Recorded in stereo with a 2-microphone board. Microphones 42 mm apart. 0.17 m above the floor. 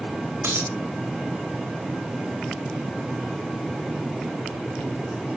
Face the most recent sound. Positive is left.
turn(degrees=-85)